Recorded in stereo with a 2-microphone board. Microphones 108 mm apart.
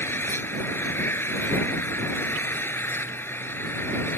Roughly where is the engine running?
Left.